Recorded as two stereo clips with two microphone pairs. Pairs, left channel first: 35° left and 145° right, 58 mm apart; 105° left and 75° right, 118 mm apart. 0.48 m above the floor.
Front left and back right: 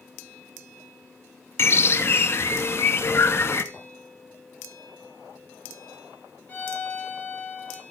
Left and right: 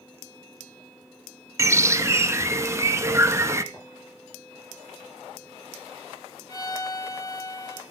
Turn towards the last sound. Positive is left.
turn(degrees=80)